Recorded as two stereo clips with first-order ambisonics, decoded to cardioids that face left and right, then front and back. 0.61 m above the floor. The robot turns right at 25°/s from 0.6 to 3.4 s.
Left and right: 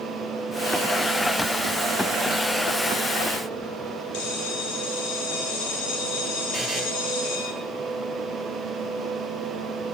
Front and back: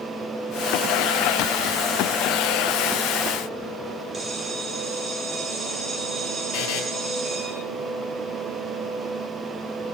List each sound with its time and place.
4.1 s a bell: 105° left, 3 m
6.5 s a buzzer: 5° left, 2 m